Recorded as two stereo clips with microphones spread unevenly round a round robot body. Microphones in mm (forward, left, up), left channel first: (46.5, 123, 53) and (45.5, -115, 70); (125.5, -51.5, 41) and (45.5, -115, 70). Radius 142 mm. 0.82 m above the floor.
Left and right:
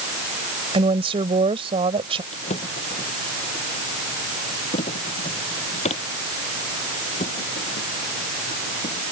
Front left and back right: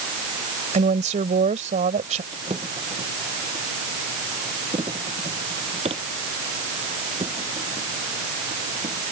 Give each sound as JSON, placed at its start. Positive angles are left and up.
{"t": 0.7, "sound": "a woman speaking", "azimuth_deg": -160}
{"t": 2.3, "sound": "a drawer", "azimuth_deg": 155}